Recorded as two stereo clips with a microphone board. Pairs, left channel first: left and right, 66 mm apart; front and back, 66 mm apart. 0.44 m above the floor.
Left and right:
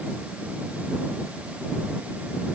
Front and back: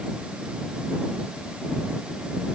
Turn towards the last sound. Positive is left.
No sound to turn to.